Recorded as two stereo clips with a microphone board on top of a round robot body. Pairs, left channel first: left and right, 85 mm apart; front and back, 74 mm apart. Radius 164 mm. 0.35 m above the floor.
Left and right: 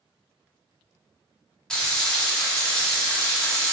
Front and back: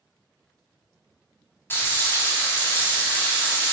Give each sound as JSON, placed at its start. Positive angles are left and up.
{"t": 1.7, "sound": "frying", "azimuth_deg": 15, "distance_m": 1.2}